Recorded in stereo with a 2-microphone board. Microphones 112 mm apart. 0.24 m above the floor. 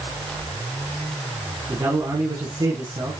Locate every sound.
1.7 s a man speaking: 35° right (ahead or behind), 2 m